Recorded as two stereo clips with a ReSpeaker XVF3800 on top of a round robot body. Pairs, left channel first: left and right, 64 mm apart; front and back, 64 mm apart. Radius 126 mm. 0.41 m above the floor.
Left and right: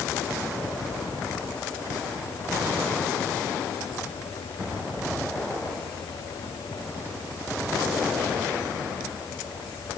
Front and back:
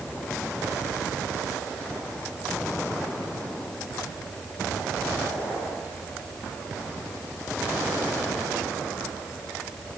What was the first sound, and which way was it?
Only background noise.